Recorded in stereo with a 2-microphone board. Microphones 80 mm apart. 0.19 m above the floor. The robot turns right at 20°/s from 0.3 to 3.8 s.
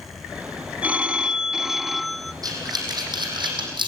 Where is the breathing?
50° right (ahead or behind), 5.5 m; by 3.9 s 75° right (ahead or behind), 5.5 m.